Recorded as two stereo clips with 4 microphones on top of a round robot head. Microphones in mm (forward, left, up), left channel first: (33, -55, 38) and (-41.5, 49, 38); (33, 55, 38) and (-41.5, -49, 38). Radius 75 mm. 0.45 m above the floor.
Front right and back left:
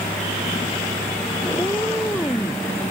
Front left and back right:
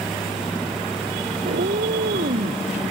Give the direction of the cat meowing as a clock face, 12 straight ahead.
4 o'clock.